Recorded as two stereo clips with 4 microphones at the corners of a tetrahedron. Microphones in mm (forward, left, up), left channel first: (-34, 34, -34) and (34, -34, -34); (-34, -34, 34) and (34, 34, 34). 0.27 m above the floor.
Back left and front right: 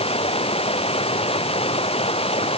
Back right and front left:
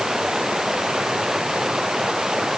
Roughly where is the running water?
Behind left.